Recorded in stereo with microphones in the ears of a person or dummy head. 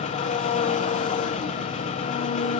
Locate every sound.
0.0 s an engine running: 35° left (ahead or behind), 1.3 m